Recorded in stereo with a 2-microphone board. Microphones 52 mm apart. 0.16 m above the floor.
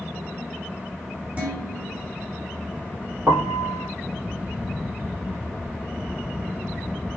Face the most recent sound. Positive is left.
turn(degrees=-65)  # may be behind; listen again after turning